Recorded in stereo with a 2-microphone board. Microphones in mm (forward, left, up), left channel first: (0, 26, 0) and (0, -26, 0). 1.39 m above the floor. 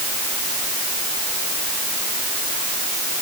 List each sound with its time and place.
Only background noise.